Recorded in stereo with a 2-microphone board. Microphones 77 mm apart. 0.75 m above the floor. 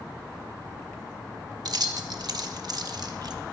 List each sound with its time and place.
1.6 s keys jangling: 60° right (ahead or behind), 0.7 m